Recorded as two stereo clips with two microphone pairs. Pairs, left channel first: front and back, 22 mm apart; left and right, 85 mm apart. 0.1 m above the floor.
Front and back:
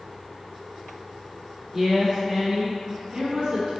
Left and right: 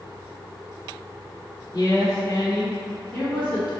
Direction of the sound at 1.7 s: 100° left.